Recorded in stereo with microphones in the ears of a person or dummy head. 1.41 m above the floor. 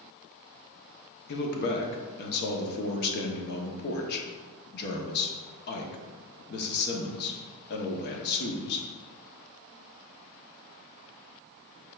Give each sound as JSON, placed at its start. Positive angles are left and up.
{"t": 1.3, "sound": "a man speaking", "side_deg": 60, "distance_m": 0.8}